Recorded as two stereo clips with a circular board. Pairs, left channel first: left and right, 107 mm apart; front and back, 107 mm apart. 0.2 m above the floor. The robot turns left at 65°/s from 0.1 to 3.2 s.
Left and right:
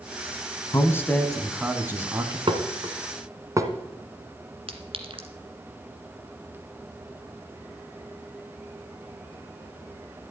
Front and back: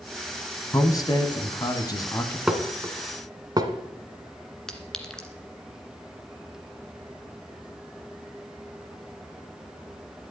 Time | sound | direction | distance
0.7 | a man speaking | 45° left | 1.3 m
2.5 | dishes clattering | 95° right | 1.4 m
4.7 | a clink | 85° right | 1.6 m